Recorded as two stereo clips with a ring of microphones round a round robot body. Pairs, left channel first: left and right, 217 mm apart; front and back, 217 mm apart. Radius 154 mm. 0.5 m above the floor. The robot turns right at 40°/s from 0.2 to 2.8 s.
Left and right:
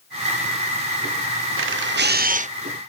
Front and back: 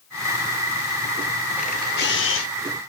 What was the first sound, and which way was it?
A camera shutter, 70° right.